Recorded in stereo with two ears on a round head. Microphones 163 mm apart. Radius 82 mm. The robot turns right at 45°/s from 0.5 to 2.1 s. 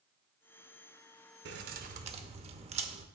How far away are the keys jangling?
About 0.6 m.